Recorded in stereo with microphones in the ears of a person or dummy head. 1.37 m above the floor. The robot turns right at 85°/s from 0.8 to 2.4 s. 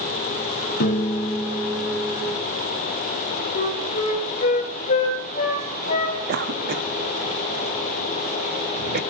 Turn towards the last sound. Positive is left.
turn(degrees=-50)  # may be behind; listen again after turning